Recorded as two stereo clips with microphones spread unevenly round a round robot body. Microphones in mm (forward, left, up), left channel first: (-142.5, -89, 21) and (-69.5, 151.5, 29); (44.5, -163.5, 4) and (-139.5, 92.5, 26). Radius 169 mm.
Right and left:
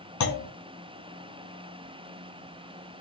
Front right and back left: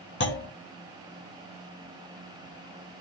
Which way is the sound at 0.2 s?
110° right.